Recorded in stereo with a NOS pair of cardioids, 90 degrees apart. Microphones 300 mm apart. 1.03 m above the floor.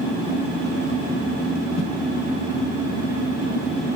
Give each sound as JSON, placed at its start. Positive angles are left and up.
{"t": 1.8, "sound": "a whoosh", "azimuth_deg": 65, "distance_m": 1.2}